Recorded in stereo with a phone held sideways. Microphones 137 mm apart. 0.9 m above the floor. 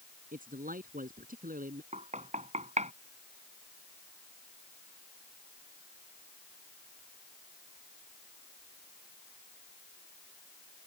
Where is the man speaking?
80° right.